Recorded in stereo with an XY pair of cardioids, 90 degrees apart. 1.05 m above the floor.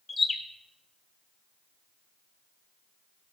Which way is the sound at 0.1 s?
30° left.